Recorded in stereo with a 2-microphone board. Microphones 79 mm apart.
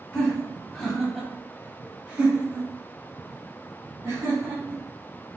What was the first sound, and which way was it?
Laughter, 15° left (ahead or behind).